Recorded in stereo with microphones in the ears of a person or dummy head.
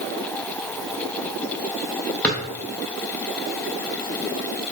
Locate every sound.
2.2 s a drawer: 10° left (ahead or behind), 0.8 m